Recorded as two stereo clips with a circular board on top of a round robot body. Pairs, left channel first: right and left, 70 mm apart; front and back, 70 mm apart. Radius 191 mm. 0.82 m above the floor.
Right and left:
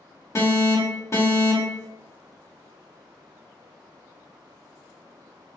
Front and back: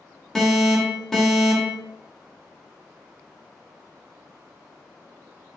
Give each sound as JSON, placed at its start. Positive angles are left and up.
{"t": 0.3, "sound": "an alarm", "azimuth_deg": -80, "distance_m": 1.5}